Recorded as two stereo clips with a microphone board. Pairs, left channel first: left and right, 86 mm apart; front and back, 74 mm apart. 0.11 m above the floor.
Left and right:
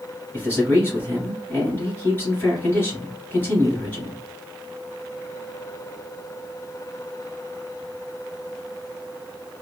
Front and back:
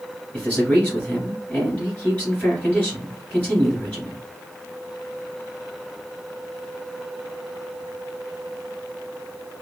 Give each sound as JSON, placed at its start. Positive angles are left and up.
{"t": 0.3, "sound": "a man speaking", "azimuth_deg": 45, "distance_m": 1.9}